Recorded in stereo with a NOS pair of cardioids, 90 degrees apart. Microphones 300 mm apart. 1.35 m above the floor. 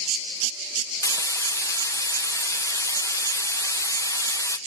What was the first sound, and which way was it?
Frying, 10° left.